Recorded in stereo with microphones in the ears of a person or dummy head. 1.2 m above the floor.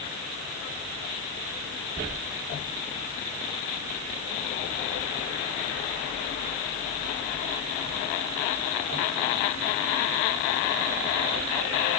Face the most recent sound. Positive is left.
No sound to turn to.